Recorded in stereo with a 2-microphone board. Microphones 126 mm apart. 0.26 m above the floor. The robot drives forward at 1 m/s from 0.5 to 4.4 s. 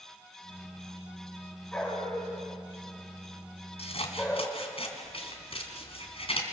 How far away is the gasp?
No gasp in this recording.